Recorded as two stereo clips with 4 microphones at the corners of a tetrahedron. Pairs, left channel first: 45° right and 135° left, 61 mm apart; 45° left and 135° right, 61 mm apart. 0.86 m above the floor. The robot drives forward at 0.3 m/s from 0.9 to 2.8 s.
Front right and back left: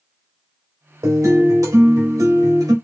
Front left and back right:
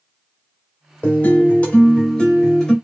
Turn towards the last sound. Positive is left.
turn(degrees=125)